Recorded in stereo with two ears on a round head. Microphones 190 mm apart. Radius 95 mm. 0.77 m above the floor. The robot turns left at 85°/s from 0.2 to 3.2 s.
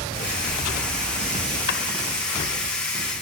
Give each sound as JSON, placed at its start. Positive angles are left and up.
{"t": 1.7, "sound": "a drawer", "side_deg": 55, "distance_m": 2.0}